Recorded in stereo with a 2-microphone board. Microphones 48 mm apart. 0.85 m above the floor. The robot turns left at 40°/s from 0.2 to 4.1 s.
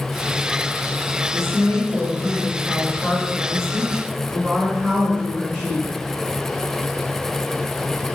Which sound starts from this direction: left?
A woman speaking, at 1.3 s.